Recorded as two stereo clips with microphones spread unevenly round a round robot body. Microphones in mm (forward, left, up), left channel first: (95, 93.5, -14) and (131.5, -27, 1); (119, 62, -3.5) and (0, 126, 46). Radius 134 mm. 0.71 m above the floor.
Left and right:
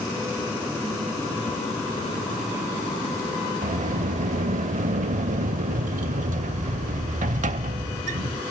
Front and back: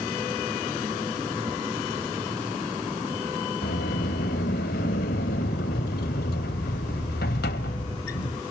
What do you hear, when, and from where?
3.6 s a sliding door: 75° right, 0.9 m